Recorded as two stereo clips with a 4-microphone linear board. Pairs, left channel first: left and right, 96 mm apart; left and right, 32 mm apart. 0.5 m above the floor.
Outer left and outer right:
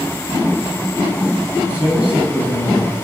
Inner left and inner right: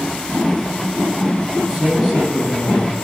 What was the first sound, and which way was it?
A man speaking, 10° right (ahead or behind).